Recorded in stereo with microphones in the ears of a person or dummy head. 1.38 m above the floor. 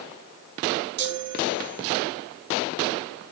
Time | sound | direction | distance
1.0 | a chime | 60° right (ahead or behind) | 1.1 m